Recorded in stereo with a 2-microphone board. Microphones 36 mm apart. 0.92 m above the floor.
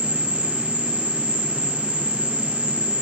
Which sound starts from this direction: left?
An insect, at 0.0 s.